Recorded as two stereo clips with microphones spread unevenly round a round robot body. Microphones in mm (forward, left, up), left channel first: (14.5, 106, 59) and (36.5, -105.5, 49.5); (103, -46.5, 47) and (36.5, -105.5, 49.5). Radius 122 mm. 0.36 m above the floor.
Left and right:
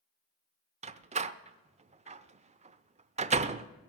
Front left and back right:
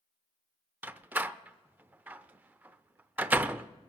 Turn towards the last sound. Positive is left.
turn(degrees=-80)